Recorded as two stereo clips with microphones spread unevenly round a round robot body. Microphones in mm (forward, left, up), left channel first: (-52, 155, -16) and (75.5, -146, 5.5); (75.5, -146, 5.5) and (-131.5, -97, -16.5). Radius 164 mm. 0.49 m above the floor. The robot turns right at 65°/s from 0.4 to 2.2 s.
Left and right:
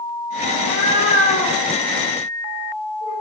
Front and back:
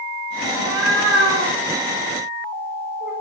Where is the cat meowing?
140° left, 2.5 m; by 3.1 s 110° right, 2.5 m.